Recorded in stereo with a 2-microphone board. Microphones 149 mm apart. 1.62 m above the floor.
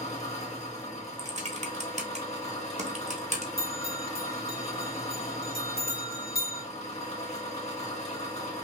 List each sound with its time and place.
0.0 s an engine running: 45° left (ahead or behind), 1.5 m
1.2 s typing on a keyboard: 50° right (ahead or behind), 0.9 m
3.6 s a bell: 70° left (ahead or behind), 1.9 m